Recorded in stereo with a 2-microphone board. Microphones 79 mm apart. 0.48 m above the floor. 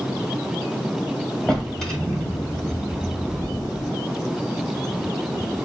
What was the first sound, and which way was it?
A drawer, 5° left (ahead or behind).